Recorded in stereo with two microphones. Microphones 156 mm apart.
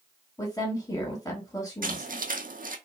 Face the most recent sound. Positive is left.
turn(degrees=-65)  # may be behind; listen again after turning